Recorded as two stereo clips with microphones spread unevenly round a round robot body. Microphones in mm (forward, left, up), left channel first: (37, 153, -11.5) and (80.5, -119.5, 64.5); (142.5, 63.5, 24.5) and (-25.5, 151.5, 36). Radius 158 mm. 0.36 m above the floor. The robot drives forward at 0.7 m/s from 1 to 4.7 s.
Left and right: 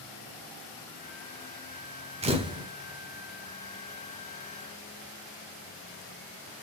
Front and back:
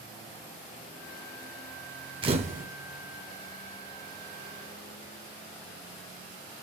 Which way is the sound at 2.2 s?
155° right.